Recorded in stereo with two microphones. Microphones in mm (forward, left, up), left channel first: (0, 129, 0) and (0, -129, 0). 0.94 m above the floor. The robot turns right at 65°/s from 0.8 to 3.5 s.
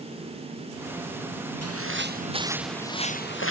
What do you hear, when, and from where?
1.6 s footsteps: 70° right (ahead or behind); by 3.5 s 55° left (ahead or behind)